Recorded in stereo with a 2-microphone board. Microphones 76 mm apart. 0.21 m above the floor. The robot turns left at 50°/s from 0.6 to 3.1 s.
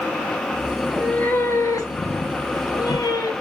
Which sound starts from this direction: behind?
A cat meowing, at 0.8 s.